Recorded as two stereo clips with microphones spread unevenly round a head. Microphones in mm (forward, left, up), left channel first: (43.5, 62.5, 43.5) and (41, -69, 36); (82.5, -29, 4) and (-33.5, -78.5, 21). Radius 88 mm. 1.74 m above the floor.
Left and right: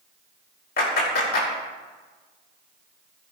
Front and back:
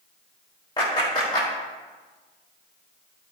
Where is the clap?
95° left, 5 m.